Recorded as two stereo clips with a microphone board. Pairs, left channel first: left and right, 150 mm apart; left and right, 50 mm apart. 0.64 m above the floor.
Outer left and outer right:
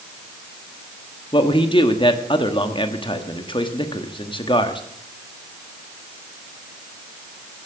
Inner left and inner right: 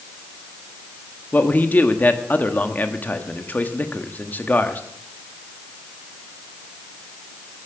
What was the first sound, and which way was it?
A man speaking, 35° left (ahead or behind).